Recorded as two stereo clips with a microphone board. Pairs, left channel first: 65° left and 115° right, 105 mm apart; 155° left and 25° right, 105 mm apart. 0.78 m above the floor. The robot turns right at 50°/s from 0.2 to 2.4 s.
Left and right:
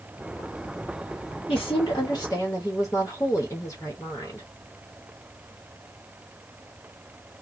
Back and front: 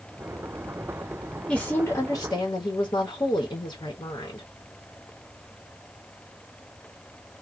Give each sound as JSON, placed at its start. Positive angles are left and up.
{"t": 1.5, "sound": "a woman speaking", "azimuth_deg": 80, "distance_m": 1.0}